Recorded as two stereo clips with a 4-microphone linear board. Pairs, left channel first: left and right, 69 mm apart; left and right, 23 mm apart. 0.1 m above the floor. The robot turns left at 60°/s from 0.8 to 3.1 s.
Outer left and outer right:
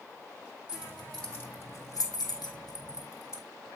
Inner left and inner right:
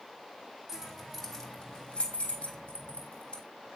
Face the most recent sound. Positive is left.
turn(degrees=50)  # may be behind; listen again after turning